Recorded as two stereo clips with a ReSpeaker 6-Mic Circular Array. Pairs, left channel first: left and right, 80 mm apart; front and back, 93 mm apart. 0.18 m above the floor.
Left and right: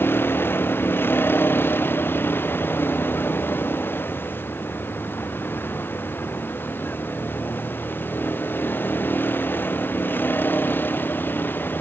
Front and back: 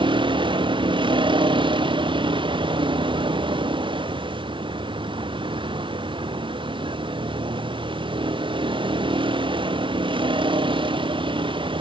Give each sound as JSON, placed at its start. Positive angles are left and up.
{"t": 0.0, "sound": "a vehicle", "azimuth_deg": 155}